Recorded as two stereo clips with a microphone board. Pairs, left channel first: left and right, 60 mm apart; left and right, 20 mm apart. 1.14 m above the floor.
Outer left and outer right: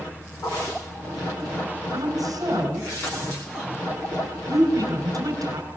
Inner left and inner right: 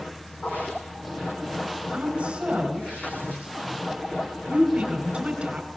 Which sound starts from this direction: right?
A woman speaking, at 1.9 s.